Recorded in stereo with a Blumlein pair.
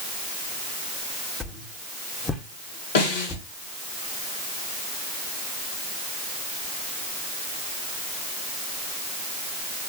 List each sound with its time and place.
1.4 s a whoosh: 15° left, 2.5 m
3.0 s a snare drum: 55° left, 3.5 m